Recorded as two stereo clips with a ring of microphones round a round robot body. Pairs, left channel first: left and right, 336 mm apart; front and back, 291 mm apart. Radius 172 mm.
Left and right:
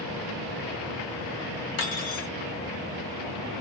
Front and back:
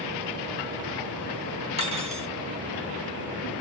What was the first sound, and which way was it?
Cutlery clinking, 110° left.